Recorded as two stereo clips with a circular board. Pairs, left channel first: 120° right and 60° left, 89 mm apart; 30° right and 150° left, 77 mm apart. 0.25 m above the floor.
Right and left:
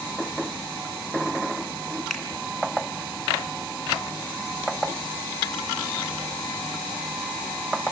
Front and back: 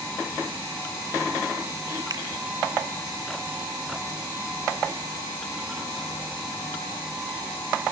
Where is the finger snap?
155° left, 3 m.